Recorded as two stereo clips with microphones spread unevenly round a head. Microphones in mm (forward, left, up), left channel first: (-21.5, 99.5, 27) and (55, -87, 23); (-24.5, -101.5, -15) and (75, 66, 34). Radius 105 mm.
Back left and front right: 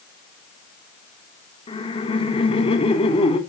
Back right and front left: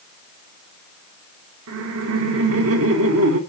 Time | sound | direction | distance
1.7 | laughter | 50° left | 3 m